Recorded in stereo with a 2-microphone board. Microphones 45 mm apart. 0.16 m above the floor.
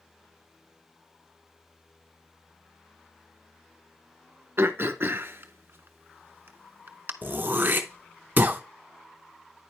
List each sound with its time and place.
4.6 s throat clearing: 55° right (ahead or behind), 0.5 m
7.2 s throat clearing: 45° right (ahead or behind), 0.7 m